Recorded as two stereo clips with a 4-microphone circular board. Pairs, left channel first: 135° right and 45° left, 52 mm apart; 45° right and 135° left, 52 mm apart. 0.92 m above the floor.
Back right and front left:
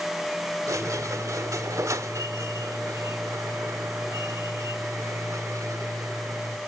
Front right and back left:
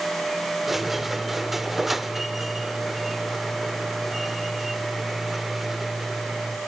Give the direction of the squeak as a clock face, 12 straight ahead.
10 o'clock.